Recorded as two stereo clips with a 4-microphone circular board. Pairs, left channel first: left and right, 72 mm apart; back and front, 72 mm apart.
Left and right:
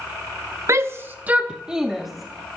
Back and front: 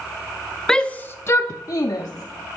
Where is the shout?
105° right, 0.6 m; by 2.6 s 175° left, 1.1 m.